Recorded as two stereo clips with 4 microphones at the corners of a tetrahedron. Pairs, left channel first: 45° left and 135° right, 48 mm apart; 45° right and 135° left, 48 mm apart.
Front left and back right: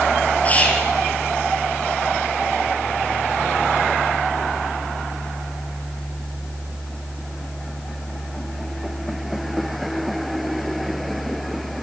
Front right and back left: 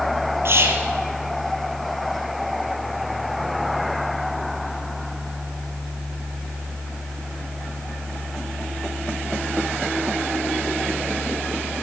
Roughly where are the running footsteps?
I don't hear running footsteps.